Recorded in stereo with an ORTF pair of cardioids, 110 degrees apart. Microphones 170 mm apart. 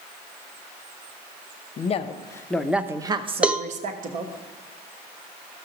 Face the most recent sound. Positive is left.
turn(degrees=-5)